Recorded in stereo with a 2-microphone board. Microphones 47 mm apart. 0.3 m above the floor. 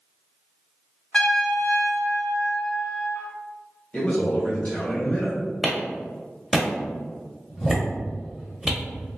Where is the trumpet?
20° left (ahead or behind), 0.5 m.